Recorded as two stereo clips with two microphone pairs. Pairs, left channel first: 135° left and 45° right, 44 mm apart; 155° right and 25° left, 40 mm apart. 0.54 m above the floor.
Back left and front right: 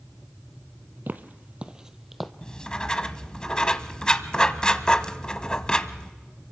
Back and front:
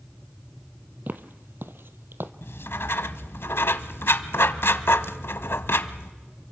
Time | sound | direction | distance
1.1 | footsteps | 10° right | 1.1 m
2.4 | writing | 150° right | 0.9 m